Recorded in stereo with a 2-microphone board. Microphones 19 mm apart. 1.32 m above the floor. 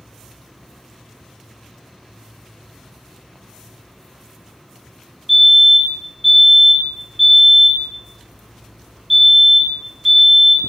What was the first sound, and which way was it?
A fire alarm, 5° right (ahead or behind).